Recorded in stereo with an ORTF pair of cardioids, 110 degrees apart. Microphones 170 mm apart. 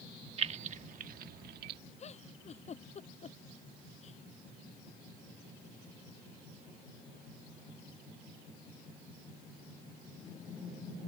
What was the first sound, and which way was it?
Keys jangling, 35° right.